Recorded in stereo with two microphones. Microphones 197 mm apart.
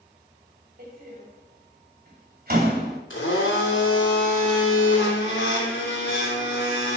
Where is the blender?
85° left, 3 m.